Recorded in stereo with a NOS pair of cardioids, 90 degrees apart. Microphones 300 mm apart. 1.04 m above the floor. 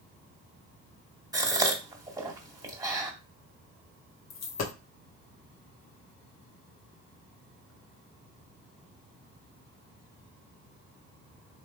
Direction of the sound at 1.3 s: 10° right.